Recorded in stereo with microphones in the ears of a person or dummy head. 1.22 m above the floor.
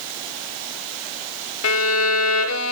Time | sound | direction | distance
1.6 | a violin | 75° left (ahead or behind) | 0.6 m